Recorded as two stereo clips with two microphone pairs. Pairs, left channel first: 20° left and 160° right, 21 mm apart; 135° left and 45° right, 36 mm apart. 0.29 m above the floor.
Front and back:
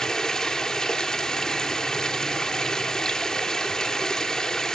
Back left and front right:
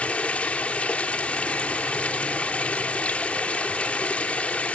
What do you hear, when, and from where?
0.0 s running water: 80° left, 2 m